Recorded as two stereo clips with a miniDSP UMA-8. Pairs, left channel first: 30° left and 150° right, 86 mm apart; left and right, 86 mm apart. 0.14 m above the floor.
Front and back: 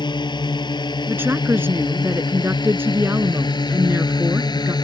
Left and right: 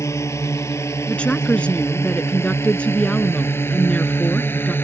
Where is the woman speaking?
160° left.